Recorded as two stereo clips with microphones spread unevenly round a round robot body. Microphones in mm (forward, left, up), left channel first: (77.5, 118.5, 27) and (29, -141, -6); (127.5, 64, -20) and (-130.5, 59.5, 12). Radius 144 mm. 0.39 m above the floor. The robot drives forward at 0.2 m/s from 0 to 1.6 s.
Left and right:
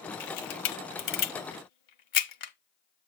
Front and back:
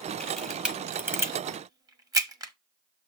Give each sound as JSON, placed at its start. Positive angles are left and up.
{"t": 0.2, "sound": "a camera shutter", "azimuth_deg": 85, "distance_m": 1.0}